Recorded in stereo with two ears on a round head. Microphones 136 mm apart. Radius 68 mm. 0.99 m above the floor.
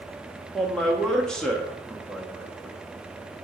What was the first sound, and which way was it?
A man speaking, 5° left (ahead or behind).